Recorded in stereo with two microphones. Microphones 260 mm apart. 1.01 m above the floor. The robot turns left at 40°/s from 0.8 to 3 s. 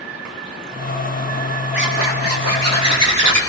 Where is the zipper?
45° right, 4 m; by 3.4 s 95° right, 4 m.